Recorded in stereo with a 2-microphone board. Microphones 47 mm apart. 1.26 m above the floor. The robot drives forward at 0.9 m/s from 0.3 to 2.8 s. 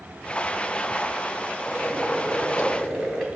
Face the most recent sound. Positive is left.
turn(degrees=5)  # may be behind; listen again after turning